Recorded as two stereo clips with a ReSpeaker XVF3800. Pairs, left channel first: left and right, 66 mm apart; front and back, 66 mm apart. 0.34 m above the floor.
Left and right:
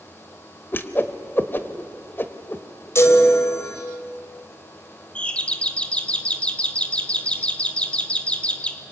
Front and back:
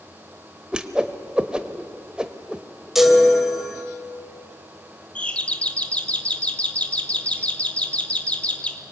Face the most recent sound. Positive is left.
turn(degrees=45)